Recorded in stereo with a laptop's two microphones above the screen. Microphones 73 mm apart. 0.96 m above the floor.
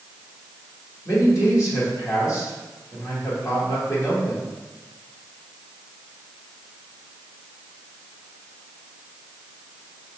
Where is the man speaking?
45° left (ahead or behind), 1.9 m.